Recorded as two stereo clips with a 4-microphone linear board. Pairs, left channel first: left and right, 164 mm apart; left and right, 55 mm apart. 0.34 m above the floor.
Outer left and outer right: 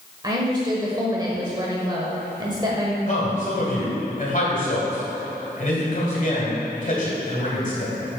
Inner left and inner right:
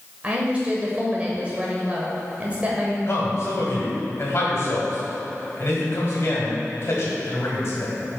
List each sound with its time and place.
0.2 s a woman speaking: 25° right (ahead or behind), 1.0 m
3.1 s a man speaking: 50° left (ahead or behind), 1.9 m